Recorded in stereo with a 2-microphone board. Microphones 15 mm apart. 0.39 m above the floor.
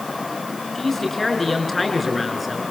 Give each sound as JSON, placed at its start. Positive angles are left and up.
{"t": 0.8, "sound": "a man speaking", "side_deg": 20, "distance_m": 6.0}